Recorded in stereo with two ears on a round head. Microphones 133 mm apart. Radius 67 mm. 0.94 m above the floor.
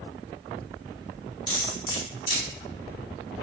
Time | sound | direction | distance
1.5 | cutlery clinking | 30° left (ahead or behind) | 1.9 m